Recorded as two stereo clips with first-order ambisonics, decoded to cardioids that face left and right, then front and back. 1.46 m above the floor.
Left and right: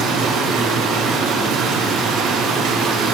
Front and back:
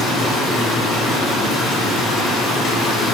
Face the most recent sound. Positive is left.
turn(degrees=-55)